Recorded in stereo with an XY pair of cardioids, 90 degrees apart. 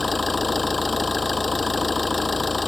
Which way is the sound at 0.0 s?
25° left.